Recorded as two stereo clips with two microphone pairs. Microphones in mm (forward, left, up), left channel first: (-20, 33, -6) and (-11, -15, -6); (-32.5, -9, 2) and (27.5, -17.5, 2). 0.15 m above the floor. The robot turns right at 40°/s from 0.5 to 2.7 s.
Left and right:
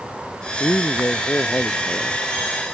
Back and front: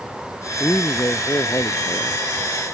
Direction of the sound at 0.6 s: 125° left.